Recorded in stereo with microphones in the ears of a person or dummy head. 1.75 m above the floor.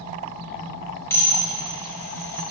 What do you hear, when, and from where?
1.1 s dishes clattering: 20° left (ahead or behind), 3.5 m